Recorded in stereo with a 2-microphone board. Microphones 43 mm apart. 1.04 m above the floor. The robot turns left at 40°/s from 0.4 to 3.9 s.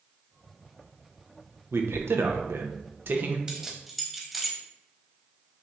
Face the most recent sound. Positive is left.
turn(degrees=0)  # may be behind; listen again after turning